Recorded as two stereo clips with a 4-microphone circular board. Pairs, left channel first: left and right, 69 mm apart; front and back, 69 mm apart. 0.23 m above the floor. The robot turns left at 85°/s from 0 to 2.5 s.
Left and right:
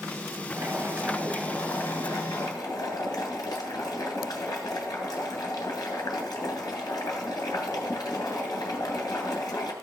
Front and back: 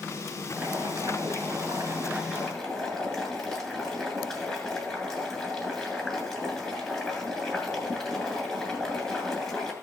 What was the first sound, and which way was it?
Boiling, 110° right.